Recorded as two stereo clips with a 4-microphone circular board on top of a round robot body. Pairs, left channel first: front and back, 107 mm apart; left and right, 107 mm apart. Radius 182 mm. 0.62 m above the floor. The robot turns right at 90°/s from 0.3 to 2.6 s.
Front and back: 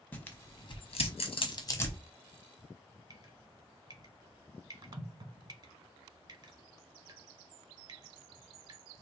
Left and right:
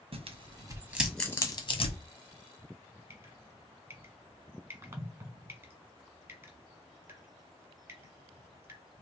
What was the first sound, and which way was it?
Tearing paper, 75° right.